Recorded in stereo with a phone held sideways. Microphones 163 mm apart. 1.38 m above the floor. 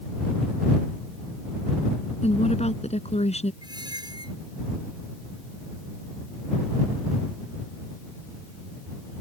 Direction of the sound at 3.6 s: 25° right (ahead or behind).